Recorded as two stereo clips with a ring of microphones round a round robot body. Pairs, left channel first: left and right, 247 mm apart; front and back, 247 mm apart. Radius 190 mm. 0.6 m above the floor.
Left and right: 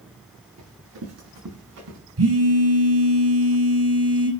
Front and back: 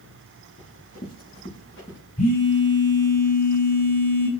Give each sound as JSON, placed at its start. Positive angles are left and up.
{"t": 0.6, "sound": "running footsteps", "azimuth_deg": -75, "distance_m": 6.0}
{"t": 2.2, "sound": "a phone buzzing", "azimuth_deg": -70, "distance_m": 3.5}